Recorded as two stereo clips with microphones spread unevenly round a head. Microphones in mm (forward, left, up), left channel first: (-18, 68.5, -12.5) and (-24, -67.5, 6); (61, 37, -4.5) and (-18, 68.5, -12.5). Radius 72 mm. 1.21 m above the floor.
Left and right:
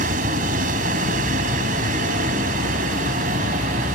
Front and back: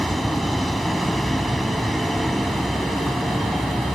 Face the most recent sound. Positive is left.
turn(degrees=-110)